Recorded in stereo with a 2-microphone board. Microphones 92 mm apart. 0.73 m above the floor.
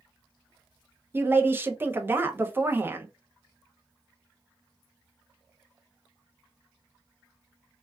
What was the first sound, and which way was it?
A woman speaking, 25° right (ahead or behind).